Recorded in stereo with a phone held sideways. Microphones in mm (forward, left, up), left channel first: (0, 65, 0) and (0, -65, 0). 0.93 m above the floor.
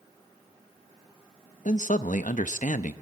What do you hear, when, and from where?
1.6 s a man speaking: 70° left (ahead or behind), 0.8 m